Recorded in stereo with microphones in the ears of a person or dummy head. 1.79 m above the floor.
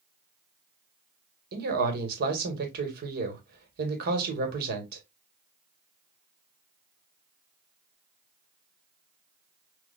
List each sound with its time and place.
1.5 s a man speaking: 55° right (ahead or behind), 1.7 m